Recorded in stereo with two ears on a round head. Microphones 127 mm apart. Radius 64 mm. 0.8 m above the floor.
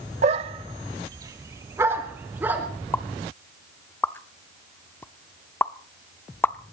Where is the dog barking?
50° right (ahead or behind), 0.9 m; by 2.7 s 15° right (ahead or behind), 3 m.